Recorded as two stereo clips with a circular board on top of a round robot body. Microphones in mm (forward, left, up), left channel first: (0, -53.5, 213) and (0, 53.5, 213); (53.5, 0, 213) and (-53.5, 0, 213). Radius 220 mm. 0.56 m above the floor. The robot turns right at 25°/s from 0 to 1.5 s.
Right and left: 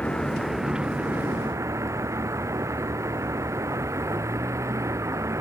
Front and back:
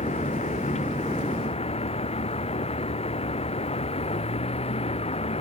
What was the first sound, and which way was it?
A vehicle, 10° right.